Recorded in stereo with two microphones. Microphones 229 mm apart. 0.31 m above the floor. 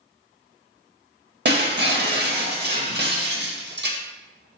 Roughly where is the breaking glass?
Right.